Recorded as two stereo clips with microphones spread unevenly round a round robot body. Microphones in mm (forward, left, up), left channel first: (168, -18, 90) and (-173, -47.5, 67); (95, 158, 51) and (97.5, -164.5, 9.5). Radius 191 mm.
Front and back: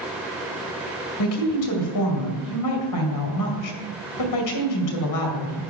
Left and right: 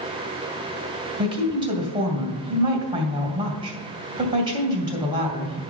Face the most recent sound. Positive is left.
turn(degrees=-20)